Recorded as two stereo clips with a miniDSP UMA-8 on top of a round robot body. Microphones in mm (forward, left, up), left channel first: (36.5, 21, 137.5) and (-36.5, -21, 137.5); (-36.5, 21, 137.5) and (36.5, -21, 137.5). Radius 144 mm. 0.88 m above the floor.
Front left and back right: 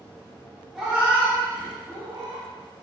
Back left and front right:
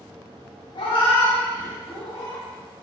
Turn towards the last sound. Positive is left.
turn(degrees=180)